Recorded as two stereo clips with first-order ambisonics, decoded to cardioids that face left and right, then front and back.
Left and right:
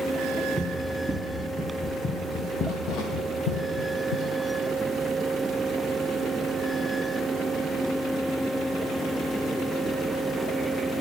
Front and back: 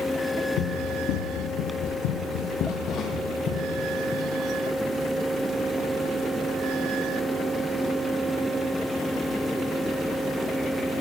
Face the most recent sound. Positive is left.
turn(degrees=80)